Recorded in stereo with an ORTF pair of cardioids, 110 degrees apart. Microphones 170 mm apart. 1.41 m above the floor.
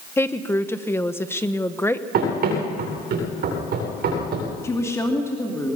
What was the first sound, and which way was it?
A woman speaking, 15° left.